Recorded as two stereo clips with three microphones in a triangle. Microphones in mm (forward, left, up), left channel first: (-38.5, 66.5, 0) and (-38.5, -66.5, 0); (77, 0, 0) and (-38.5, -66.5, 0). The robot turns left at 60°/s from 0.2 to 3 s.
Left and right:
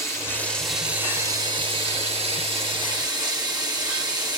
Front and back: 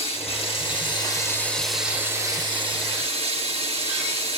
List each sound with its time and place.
0.0 s running water: 30° left, 1.7 m; by 4.4 s 140° right, 1.7 m